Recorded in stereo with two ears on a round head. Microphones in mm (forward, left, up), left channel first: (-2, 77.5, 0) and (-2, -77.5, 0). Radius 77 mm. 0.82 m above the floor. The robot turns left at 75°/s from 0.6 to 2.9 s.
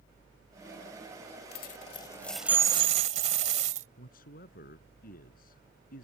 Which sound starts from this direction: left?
A man speaking, at 4.0 s.